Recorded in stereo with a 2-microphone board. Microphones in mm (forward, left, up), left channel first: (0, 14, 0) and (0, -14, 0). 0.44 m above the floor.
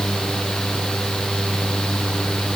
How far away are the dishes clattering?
No dishes clattering in this recording.